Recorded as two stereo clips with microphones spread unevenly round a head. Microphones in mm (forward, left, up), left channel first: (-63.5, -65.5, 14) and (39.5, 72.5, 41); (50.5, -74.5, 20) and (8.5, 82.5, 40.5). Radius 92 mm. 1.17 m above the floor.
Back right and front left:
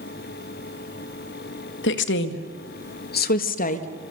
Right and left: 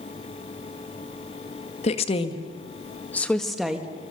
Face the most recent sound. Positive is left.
turn(degrees=-170)